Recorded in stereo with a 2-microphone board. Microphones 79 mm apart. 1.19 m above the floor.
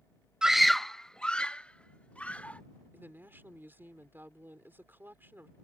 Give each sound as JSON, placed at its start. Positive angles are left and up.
{"t": 0.4, "sound": "a scream", "side_deg": -10}
{"t": 2.9, "sound": "a woman speaking", "side_deg": -25}